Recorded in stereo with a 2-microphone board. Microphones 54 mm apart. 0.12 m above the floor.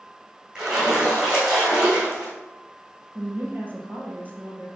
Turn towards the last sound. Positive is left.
turn(degrees=-30)  # may be behind; listen again after turning